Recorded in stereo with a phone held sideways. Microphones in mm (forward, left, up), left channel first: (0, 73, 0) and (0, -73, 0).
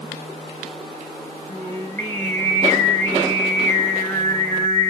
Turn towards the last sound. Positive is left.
turn(degrees=20)  # may be behind; listen again after turning